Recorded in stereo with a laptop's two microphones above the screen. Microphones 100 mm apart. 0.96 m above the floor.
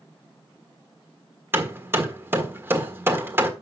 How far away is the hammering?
About 1.5 m.